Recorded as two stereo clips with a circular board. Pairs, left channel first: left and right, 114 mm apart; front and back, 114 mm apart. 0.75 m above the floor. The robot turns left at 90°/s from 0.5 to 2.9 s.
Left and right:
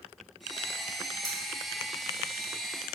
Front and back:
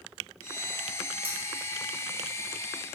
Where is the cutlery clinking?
145° left, 0.9 m; by 1.4 s 135° left, 0.9 m.